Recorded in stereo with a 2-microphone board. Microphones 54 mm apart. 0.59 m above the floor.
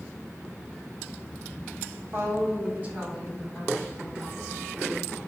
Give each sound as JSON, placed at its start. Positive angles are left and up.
{"t": 2.1, "sound": "a woman speaking", "side_deg": -55, "distance_m": 2.0}